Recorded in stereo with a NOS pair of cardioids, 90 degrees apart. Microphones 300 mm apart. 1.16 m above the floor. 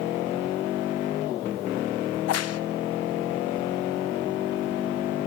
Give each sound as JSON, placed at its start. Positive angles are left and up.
{"t": 2.1, "sound": "a crack", "azimuth_deg": 55, "distance_m": 0.7}